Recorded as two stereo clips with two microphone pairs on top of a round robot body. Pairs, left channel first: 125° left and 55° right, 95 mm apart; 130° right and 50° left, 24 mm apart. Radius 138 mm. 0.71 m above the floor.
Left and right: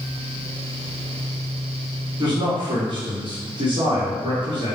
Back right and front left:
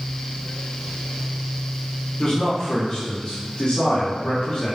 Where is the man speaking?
85° right, 3 m.